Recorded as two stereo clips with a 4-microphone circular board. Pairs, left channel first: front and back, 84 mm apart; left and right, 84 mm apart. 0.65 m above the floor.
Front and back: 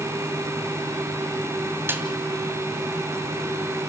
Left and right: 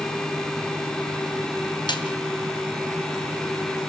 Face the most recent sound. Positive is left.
turn(degrees=115)